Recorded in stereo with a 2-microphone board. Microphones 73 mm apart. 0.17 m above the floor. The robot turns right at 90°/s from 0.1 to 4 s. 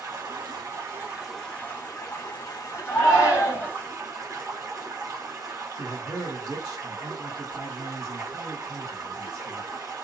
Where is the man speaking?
50° right (ahead or behind), 2 m.